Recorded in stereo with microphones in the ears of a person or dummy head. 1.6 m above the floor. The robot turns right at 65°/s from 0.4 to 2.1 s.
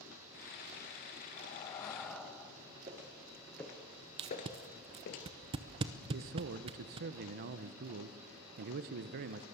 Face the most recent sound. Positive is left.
turn(degrees=-50)  # may be behind; listen again after turning